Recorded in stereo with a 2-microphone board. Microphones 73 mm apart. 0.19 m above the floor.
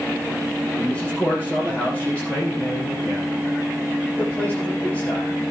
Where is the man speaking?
20° left (ahead or behind), 9.5 m.